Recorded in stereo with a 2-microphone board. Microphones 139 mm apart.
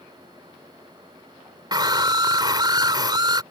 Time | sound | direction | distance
1.7 | a scream | 30° right (ahead or behind) | ?